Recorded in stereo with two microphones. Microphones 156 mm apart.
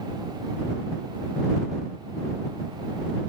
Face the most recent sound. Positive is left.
No sound to turn to.